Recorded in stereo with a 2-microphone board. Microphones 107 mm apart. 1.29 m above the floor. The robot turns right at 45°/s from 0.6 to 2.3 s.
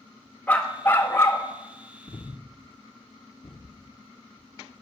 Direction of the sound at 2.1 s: 40° left (ahead or behind).